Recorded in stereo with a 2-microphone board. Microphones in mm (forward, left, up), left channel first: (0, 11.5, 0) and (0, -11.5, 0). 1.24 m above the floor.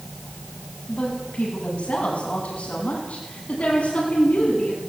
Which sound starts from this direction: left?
A woman speaking, at 0.9 s.